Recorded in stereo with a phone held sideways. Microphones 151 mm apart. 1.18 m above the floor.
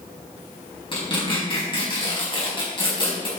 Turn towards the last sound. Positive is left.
turn(degrees=35)  # may be behind; listen again after turning